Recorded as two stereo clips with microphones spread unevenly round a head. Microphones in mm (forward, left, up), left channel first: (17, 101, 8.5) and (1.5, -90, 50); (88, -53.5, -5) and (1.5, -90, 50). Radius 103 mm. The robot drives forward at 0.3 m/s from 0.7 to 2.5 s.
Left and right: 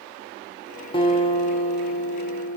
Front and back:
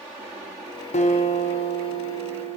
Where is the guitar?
15° left, 1.0 m; by 2.6 s 45° left, 0.7 m.